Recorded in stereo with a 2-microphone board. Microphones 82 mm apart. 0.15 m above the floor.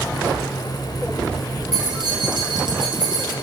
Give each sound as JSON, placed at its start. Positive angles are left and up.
{"t": 1.7, "sound": "keys jangling", "side_deg": -65, "distance_m": 1.8}